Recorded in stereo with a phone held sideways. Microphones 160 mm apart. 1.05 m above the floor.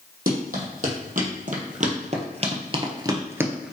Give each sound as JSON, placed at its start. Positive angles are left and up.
{"t": 0.3, "sound": "running footsteps", "side_deg": -65, "distance_m": 2.5}